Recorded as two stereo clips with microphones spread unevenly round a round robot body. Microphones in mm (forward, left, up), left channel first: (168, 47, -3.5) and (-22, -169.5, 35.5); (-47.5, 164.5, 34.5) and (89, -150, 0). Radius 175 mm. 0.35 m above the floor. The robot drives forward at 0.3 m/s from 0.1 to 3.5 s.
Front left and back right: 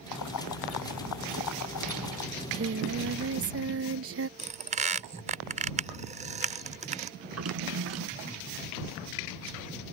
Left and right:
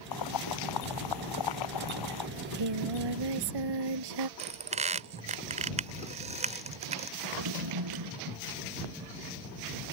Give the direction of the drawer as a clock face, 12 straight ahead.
3 o'clock.